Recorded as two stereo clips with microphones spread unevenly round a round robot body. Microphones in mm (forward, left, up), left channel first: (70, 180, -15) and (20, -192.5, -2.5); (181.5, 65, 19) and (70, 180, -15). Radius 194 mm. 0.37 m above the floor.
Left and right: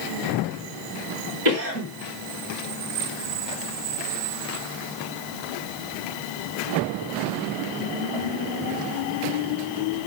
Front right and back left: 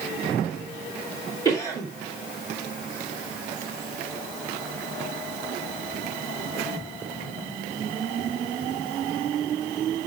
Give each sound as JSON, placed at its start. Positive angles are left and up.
{"t": 1.4, "sound": "a cough", "azimuth_deg": -155, "distance_m": 2.5}